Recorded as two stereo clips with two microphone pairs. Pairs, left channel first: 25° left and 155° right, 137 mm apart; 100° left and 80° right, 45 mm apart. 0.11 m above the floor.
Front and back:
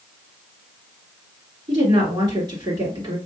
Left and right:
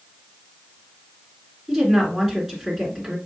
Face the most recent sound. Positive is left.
turn(degrees=-150)